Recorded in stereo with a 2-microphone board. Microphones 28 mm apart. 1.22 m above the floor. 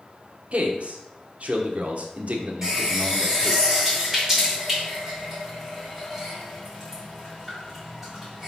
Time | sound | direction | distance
0.5 | a man speaking | 55° right (ahead or behind) | 1.1 m
2.6 | a running tap | 10° right (ahead or behind) | 3.5 m